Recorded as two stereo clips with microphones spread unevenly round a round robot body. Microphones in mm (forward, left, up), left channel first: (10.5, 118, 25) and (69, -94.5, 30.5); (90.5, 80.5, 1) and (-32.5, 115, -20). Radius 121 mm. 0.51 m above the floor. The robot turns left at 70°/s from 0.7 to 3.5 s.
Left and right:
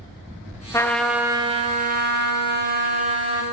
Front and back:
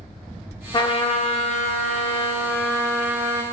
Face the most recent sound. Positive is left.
turn(degrees=-155)